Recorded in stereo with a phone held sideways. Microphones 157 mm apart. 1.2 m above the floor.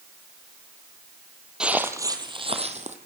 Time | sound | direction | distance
1.6 | footsteps | 5° right (ahead or behind) | 2 m